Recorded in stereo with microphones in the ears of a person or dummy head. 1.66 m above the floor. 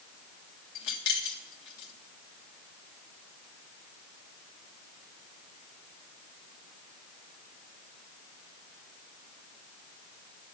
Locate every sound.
0.8 s keys jangling: 65° left (ahead or behind), 1.4 m